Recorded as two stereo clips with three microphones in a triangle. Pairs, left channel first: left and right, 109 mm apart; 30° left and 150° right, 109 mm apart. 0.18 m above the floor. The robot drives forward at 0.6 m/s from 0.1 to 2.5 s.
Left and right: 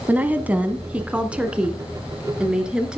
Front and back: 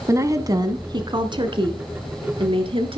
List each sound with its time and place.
0.1 s a woman speaking: 145° right, 1.1 m; by 3.0 s 170° right, 2 m